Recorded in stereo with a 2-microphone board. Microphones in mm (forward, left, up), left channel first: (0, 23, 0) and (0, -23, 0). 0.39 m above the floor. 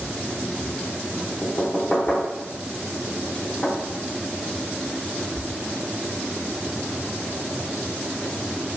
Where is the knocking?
20° left (ahead or behind), 0.7 m.